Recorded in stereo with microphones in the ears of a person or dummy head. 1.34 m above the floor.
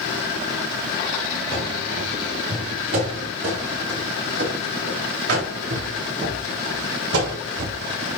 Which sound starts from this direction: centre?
Running footsteps, at 1.5 s.